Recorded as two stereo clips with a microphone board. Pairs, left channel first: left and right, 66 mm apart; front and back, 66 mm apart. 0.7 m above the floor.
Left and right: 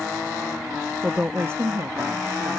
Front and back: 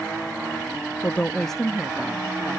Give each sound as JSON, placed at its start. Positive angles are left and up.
{"t": 1.0, "sound": "a woman speaking", "azimuth_deg": -20}